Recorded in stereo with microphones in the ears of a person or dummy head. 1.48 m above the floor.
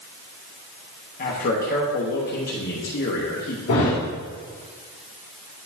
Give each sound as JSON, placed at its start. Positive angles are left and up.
{"t": 1.2, "sound": "a man speaking", "side_deg": 50, "distance_m": 1.2}
{"t": 3.7, "sound": "a thud", "side_deg": 60, "distance_m": 2.5}